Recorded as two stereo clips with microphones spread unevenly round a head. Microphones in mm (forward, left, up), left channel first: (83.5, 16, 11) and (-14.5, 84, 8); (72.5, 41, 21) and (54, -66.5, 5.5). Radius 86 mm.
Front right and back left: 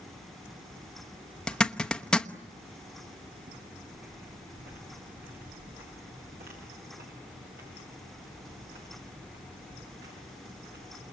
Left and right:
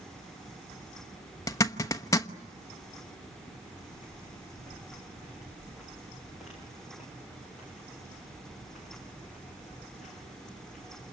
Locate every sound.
1.5 s a zipper: 45° left, 1.1 m
3.5 s footsteps: straight behind, 4.5 m; by 11.0 s 170° left, 15 m